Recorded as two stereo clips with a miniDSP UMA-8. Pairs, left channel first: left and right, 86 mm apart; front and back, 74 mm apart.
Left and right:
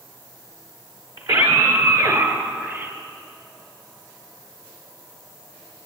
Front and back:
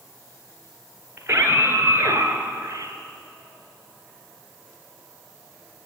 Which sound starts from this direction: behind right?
A scream, at 1.2 s.